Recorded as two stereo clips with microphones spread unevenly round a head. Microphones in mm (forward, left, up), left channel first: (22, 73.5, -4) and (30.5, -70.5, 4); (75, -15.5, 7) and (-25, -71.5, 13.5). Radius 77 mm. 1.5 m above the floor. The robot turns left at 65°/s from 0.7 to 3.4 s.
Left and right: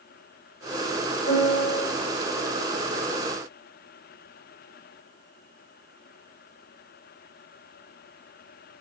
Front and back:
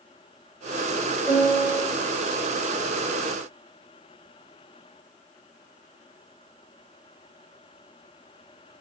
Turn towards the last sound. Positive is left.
turn(degrees=-30)